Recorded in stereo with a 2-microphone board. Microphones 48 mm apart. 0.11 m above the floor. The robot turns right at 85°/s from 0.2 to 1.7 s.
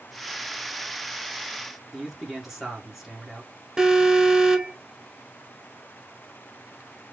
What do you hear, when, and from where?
1.9 s a man speaking: 5° right (ahead or behind), 1.5 m
3.8 s an alarm: 15° right (ahead or behind), 0.8 m